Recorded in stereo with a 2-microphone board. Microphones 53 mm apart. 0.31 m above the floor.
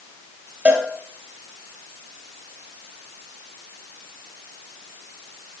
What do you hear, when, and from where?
0.7 s a cowbell: 25° right (ahead or behind), 3 m